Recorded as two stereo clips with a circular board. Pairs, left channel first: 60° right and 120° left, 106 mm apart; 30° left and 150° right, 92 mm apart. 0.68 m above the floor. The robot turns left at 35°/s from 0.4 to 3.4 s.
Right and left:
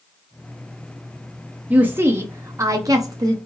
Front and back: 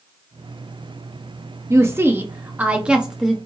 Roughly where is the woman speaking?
Behind.